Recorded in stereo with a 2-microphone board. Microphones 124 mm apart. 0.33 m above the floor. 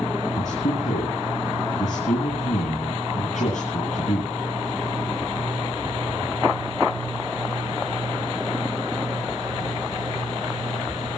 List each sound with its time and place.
0.4 s a man speaking: 75° left (ahead or behind), 10 m